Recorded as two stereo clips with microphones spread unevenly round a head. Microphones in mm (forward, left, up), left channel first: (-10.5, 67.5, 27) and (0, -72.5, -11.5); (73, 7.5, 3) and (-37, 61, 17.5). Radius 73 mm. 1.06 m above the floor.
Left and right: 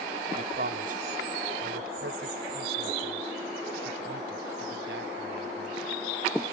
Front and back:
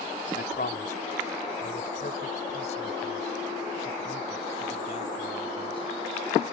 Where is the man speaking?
50° right; by 5.9 s 80° right.